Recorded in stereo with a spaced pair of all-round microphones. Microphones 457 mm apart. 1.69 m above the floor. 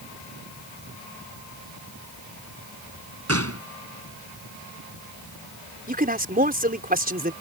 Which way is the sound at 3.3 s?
30° right (ahead or behind).